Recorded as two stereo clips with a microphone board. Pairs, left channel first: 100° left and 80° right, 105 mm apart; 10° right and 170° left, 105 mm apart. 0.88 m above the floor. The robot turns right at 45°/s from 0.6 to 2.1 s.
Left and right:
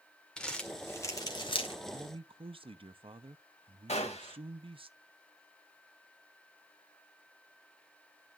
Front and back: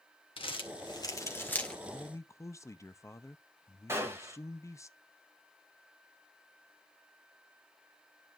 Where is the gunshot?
105° left, 1.9 m.